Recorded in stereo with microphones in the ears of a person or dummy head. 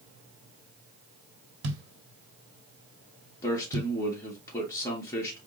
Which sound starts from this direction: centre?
A man speaking, at 3.4 s.